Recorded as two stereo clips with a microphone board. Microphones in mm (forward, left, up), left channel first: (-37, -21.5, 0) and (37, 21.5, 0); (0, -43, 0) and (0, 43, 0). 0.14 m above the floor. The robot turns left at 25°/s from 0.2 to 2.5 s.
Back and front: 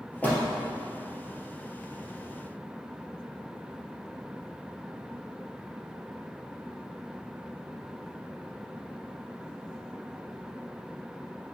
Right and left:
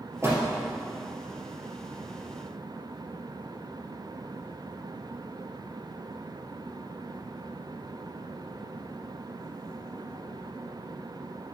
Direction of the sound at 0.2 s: 140° left.